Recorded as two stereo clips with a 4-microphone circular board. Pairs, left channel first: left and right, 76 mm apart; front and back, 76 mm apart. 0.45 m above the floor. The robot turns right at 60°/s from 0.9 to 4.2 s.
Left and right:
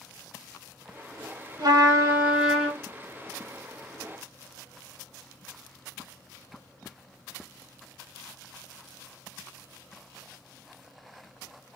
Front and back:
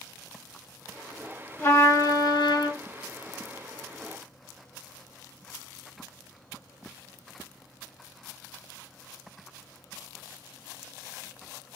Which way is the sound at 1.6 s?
60° right.